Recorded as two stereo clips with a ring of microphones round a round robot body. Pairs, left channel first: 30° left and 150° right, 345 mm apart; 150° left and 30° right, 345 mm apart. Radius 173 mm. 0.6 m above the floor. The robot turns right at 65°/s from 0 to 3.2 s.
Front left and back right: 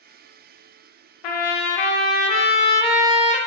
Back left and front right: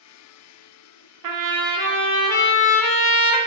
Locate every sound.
1.2 s a trumpet: 10° left, 0.5 m; by 3.4 s 140° left, 0.5 m